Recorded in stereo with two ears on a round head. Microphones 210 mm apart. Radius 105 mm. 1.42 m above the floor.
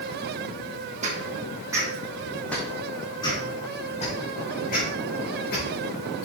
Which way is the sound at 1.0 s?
30° right (ahead or behind).